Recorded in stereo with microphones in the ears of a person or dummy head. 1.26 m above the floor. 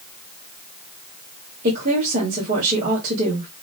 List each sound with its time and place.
1.6 s a woman speaking: 50° right (ahead or behind), 2.5 m